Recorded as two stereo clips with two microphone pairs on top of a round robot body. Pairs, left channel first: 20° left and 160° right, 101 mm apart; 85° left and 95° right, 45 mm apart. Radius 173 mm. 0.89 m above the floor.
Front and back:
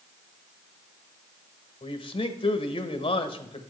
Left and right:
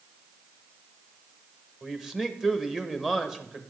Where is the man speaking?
15° right, 1.0 m.